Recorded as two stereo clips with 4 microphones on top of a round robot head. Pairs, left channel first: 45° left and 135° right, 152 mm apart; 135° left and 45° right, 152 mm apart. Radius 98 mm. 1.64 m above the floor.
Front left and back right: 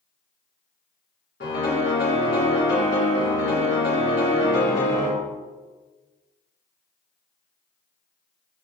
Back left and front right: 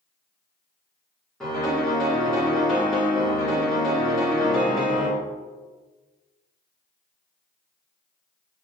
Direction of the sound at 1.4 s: 50° left.